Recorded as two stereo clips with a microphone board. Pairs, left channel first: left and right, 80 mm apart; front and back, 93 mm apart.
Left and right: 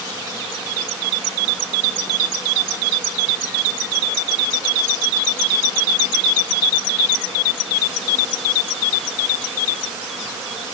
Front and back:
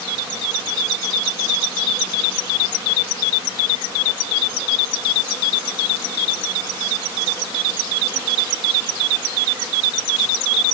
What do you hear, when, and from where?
Only background noise.